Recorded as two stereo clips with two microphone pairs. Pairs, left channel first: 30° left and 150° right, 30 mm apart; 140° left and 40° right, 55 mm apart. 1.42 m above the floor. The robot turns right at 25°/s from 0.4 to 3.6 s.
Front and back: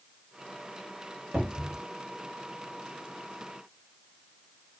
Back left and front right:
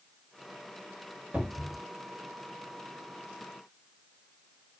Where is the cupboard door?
110° right, 1.8 m; by 1.8 s 100° right, 1.8 m.